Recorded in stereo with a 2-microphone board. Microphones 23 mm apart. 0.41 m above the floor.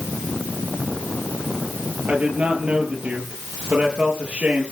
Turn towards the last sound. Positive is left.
turn(degrees=-75)  # may be behind; listen again after turning